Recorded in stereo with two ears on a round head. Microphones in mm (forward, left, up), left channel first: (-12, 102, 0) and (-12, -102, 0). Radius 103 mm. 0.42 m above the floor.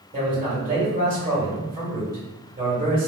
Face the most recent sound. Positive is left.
turn(degrees=-40)  # may be behind; listen again after turning